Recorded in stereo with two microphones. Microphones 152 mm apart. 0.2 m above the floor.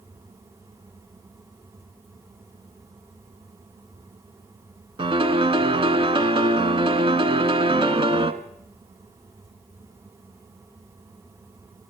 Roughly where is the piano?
Right.